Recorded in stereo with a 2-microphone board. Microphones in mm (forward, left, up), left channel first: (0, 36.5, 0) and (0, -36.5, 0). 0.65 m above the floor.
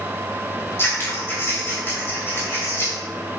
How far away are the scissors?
About 3 m.